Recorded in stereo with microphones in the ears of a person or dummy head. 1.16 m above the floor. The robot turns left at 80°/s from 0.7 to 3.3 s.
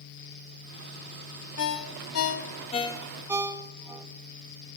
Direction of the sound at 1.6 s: 55° left (ahead or behind).